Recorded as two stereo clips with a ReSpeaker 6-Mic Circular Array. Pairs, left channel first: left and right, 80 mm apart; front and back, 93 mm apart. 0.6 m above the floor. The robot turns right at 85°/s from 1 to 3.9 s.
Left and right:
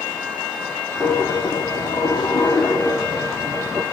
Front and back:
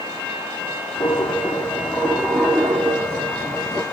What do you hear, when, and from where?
1.0 s a dropped coin: 5° right, 3.5 m; by 3.8 s 125° right, 3.5 m